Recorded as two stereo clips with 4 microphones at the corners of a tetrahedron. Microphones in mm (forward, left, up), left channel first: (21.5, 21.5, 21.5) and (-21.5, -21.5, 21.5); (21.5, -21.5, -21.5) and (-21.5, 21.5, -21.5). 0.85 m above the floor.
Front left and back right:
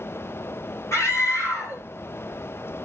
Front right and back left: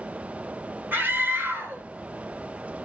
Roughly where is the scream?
Left.